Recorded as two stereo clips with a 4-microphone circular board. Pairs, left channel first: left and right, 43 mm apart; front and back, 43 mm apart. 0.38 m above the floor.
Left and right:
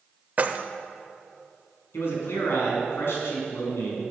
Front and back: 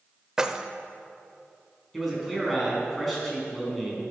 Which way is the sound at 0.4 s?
115° right.